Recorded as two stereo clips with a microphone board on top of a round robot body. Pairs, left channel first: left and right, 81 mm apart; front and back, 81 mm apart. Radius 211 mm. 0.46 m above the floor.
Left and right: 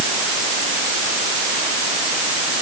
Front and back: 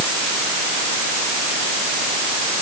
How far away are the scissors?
I don't hear scissors.